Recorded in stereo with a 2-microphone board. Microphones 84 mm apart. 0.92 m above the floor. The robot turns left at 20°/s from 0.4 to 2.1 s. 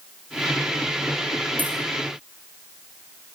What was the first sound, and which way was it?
Keys jangling, 20° right (ahead or behind).